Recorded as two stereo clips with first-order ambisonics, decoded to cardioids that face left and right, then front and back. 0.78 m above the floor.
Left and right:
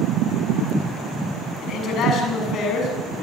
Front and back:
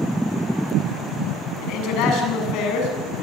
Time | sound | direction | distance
1.6 | a man speaking | 35° left | 7.5 m